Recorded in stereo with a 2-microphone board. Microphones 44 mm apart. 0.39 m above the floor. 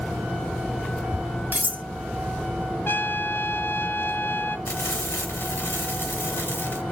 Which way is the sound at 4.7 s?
80° left.